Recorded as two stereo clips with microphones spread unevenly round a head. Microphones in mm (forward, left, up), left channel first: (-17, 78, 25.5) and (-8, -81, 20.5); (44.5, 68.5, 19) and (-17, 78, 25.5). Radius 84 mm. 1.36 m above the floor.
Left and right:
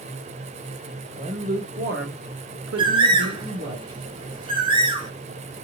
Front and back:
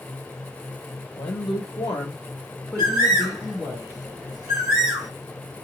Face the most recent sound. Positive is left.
turn(degrees=-140)